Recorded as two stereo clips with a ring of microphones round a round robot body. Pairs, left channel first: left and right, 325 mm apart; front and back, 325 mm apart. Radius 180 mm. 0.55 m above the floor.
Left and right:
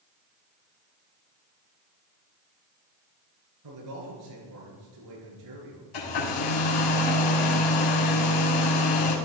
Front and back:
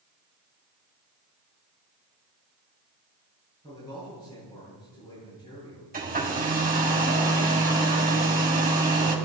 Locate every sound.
3.6 s a man speaking: 80° right, 9 m
5.9 s a hair dryer: 115° left, 4 m